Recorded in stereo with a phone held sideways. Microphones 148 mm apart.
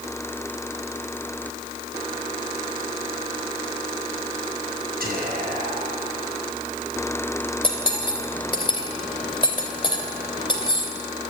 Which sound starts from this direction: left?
Cutlery clinking, at 7.6 s.